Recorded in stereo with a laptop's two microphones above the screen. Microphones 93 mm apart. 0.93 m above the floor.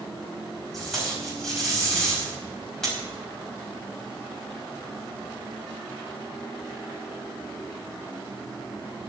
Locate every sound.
0.7 s tape being pulled: 5° left (ahead or behind), 4.5 m